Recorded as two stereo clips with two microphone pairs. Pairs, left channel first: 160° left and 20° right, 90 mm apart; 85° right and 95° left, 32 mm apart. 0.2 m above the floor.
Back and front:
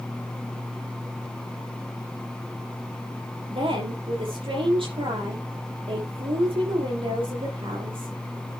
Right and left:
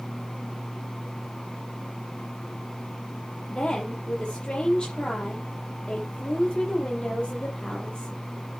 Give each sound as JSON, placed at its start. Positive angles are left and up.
{"t": 3.5, "sound": "a woman speaking", "azimuth_deg": -25, "distance_m": 6.0}